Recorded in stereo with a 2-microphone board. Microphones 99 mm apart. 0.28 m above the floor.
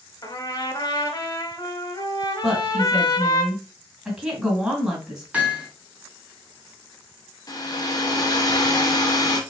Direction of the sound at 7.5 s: 40° left (ahead or behind).